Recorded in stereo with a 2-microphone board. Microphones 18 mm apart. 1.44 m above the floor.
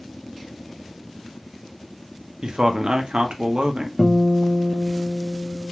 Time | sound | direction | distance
2.4 | a man speaking | 65° right (ahead or behind) | 0.5 m
4.0 | a guitar | 10° left (ahead or behind) | 0.6 m